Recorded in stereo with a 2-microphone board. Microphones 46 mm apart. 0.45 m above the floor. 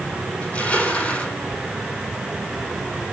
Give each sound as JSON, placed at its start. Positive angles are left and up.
{"t": 0.4, "sound": "crushing", "side_deg": 30, "distance_m": 5.0}